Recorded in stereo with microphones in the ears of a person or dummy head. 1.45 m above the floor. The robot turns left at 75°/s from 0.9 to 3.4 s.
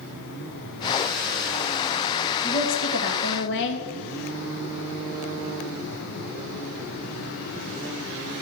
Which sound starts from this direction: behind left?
A woman speaking, at 2.4 s.